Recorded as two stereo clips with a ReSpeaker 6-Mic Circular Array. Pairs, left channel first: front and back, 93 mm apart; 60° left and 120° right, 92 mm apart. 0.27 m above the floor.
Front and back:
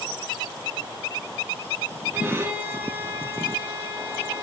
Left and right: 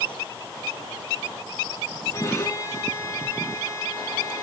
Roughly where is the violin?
Behind left.